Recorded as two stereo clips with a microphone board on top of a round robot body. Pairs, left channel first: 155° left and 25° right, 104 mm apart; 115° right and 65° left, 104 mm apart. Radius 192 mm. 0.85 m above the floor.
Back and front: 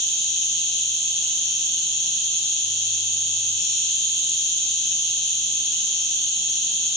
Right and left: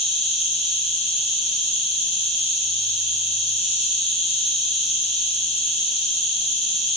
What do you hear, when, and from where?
0.0 s an insect: 85° right, 0.9 m